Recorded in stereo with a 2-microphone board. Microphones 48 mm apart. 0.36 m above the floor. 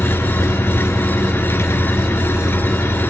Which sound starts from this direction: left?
An engine running, at 0.0 s.